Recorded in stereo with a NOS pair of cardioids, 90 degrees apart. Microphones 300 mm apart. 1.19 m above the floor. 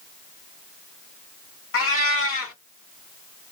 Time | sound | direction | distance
1.7 | a cat meowing | 50° left | 1.7 m